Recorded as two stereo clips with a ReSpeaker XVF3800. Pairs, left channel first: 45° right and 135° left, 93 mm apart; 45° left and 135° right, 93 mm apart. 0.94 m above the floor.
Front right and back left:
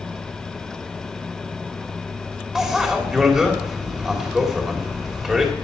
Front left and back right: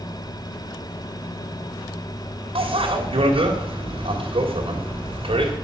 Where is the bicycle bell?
140° right, 3 m.